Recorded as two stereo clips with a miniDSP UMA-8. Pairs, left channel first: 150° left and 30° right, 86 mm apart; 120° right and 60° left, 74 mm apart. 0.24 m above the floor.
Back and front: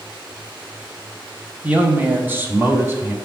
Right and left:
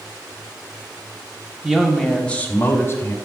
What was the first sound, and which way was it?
A man speaking, 5° left.